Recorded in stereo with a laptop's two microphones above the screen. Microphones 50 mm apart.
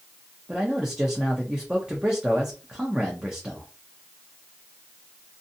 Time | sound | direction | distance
0.5 | a man speaking | 15° right (ahead or behind) | 0.5 m